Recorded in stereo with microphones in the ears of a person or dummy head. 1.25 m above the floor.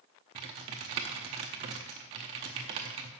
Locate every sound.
0.3 s typing on a keyboard: 25° right (ahead or behind), 0.7 m